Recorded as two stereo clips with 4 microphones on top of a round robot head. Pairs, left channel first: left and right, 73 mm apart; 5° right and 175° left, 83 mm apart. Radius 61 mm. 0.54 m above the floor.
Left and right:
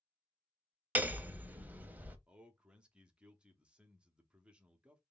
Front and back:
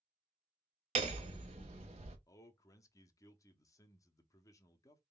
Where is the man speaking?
20° right, 0.8 m.